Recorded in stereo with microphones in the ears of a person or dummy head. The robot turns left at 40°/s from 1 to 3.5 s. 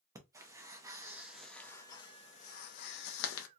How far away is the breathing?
About 0.7 m.